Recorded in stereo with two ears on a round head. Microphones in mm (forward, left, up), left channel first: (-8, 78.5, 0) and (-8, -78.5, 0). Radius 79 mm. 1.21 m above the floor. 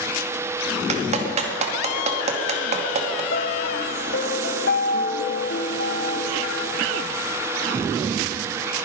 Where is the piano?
55° left (ahead or behind), 0.9 m.